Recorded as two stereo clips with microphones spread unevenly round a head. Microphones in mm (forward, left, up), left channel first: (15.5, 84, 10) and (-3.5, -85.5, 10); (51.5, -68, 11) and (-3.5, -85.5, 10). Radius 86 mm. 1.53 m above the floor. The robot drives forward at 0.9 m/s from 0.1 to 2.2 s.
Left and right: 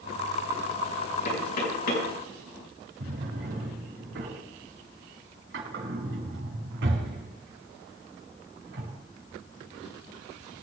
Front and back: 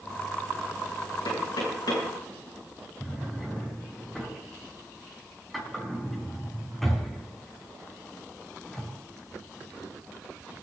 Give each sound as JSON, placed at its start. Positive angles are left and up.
{"t": 1.2, "sound": "knocking", "azimuth_deg": 45, "distance_m": 7.0}
{"t": 3.0, "sound": "a drawer", "azimuth_deg": -70, "distance_m": 6.5}